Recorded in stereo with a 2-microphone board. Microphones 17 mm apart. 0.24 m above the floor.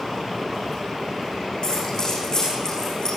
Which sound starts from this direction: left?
Keys jangling, at 1.6 s.